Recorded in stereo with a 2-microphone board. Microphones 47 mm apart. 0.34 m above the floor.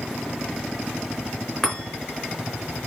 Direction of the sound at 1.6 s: 10° left (ahead or behind).